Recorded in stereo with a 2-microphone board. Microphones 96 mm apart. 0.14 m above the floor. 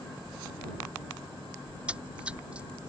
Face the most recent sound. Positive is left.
turn(degrees=-10)  # may be behind; listen again after turning